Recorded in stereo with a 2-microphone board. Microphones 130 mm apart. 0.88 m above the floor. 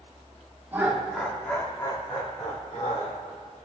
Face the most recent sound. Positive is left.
turn(degrees=65)  # may be behind; listen again after turning